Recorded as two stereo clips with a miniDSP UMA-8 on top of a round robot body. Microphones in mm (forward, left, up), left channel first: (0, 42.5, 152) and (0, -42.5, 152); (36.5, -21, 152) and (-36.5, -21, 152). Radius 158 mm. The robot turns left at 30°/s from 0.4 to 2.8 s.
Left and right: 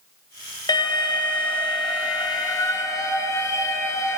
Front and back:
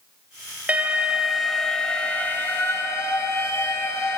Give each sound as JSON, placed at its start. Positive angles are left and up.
{"t": 0.7, "sound": "an alarm", "azimuth_deg": 110, "distance_m": 1.2}